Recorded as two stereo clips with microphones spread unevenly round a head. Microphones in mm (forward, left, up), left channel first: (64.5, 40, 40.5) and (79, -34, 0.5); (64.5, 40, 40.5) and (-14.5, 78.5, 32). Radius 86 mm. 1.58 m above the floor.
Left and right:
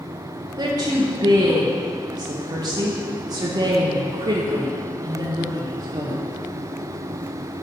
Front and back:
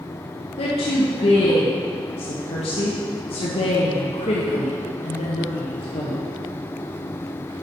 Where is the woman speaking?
35° right, 1.3 m.